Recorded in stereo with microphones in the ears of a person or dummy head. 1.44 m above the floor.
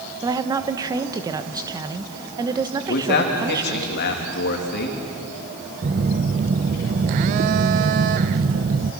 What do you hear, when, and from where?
0.2 s a woman speaking: 15° right (ahead or behind), 1.0 m
2.9 s a man speaking: 55° left (ahead or behind), 3 m
5.8 s a phone buzzing: 35° right (ahead or behind), 0.6 m